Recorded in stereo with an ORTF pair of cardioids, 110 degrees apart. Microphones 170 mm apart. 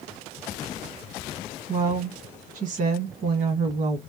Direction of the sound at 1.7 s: 50° right.